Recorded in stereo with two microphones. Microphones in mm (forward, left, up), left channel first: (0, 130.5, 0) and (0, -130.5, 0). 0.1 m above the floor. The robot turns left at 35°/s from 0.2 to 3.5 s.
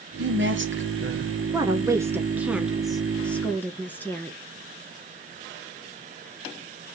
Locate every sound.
0.2 s a woman speaking: 70° right, 2 m; by 1.3 s 110° right, 2 m
1.5 s a woman speaking: 15° right (ahead or behind), 1.1 m; by 4.4 s 5° left (ahead or behind), 1.1 m